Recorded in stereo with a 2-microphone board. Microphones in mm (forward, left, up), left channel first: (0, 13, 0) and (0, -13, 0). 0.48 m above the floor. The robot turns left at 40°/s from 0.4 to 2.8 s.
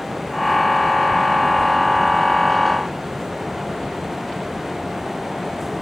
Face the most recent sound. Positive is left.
No sound to turn to.